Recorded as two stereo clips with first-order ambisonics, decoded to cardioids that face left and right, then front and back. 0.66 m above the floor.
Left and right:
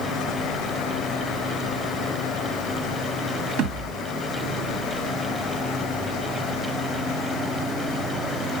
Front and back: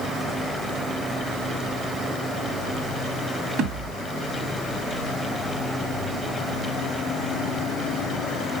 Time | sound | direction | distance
3.6 | a thud | 120° right | 2 m